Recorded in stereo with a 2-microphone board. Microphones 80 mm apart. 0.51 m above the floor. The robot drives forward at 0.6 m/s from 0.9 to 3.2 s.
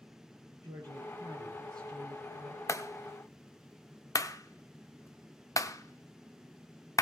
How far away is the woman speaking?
About 8.5 m.